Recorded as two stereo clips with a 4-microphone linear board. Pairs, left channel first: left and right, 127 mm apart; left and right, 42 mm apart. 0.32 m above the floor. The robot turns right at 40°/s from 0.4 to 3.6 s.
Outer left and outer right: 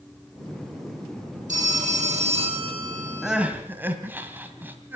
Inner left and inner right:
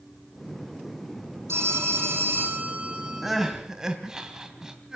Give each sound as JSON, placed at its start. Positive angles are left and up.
{"t": 1.5, "sound": "a phone ringing", "azimuth_deg": -95, "distance_m": 8.5}
{"t": 3.2, "sound": "crying", "side_deg": 0, "distance_m": 2.0}